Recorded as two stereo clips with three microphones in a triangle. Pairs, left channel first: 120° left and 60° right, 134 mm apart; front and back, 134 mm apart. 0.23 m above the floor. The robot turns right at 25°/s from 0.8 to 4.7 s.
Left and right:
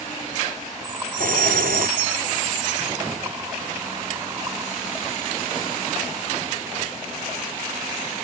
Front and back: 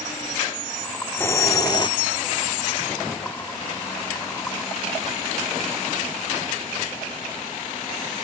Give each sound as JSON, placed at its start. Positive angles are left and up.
{"t": 1.2, "sound": "a hiss", "azimuth_deg": -75}